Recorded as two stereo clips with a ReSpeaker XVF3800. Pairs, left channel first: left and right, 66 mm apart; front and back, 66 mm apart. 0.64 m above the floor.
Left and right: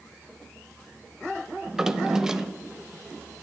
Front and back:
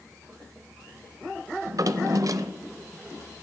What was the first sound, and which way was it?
A drawer, 170° right.